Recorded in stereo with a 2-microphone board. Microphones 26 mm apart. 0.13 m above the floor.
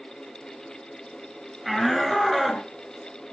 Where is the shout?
Centre (ahead or behind), 2.5 m; by 2.7 s 5° right (ahead or behind), 2 m.